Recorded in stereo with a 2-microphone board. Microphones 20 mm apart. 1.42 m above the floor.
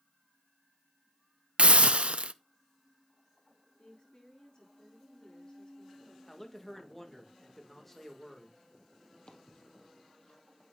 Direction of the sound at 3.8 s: 50° left (ahead or behind).